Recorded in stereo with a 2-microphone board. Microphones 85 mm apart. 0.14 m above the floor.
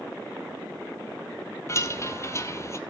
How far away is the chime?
About 1.2 m.